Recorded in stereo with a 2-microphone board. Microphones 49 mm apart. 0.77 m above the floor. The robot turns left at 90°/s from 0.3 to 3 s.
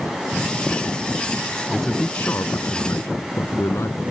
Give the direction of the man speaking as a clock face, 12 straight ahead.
6 o'clock.